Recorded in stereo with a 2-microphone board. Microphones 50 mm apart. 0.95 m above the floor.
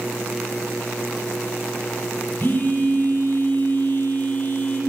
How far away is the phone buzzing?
About 3.5 m.